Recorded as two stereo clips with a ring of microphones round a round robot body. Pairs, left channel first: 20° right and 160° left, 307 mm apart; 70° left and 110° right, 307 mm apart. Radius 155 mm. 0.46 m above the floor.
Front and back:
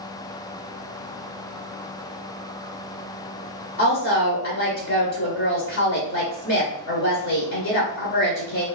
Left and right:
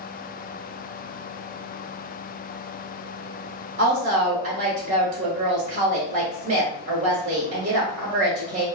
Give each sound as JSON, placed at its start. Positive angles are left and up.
{"t": 3.8, "sound": "a woman speaking", "azimuth_deg": -60, "distance_m": 0.9}